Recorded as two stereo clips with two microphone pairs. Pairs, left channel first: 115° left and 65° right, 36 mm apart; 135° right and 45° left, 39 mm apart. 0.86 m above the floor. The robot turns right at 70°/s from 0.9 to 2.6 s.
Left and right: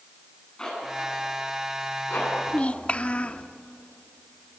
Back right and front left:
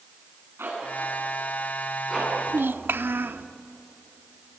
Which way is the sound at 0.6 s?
45° left.